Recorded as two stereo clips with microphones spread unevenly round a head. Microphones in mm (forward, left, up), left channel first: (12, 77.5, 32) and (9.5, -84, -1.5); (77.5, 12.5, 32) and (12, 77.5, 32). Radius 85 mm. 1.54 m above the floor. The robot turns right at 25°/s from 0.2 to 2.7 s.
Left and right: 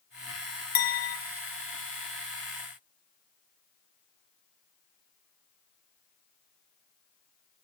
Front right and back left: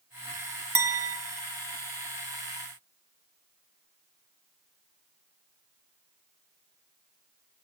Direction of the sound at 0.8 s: 75° left.